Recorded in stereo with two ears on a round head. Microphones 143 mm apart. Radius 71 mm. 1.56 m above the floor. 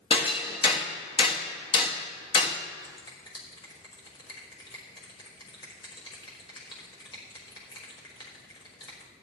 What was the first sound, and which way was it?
Hammering, 30° left (ahead or behind).